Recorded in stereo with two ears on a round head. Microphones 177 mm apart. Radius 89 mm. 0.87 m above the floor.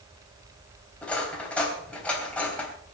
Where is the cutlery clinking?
5° left (ahead or behind), 3 m.